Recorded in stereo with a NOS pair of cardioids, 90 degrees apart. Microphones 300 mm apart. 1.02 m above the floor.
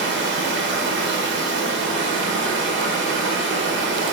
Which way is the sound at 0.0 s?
40° right.